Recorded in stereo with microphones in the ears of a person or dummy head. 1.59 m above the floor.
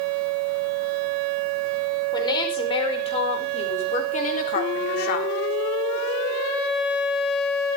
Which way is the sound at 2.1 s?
20° left (ahead or behind).